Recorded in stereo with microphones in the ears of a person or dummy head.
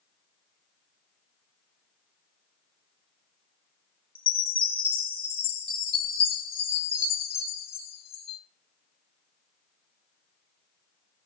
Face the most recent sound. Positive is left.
turn(degrees=30)  # may be behind; listen again after turning